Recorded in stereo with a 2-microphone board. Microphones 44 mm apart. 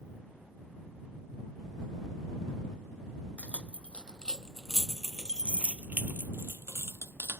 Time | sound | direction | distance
3.4 | keys jangling | 30° left (ahead or behind) | ?